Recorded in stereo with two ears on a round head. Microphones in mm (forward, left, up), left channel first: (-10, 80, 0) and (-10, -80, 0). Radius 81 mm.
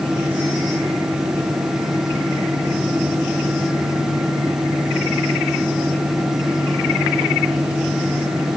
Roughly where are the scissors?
I don't hear scissors.